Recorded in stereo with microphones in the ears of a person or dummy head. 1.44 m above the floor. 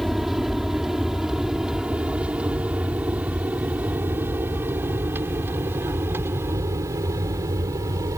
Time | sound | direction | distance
0.0 | an aircraft | centre (ahead or behind) | ?